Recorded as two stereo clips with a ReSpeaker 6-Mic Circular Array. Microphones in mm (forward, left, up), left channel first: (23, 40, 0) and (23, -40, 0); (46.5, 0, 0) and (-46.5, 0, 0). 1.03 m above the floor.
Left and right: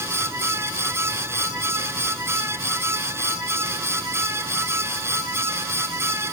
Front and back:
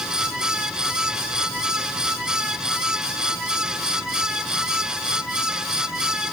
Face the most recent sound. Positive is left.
No sound to turn to.